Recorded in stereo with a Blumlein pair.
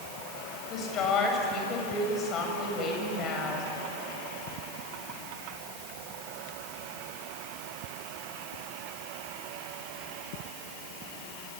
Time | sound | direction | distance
0.7 | a woman speaking | 30° left | 7 m